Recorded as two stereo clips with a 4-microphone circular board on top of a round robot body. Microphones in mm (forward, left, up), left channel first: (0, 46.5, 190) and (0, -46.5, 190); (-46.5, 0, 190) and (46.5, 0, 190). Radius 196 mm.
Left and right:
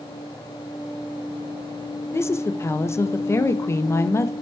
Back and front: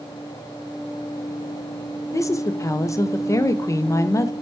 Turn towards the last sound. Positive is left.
turn(degrees=140)